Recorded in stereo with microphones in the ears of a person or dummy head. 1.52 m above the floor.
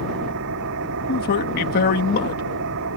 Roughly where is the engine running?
Right.